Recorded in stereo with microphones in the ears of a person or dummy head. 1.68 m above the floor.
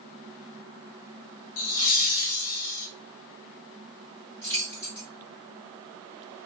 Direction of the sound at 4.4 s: 15° left (ahead or behind).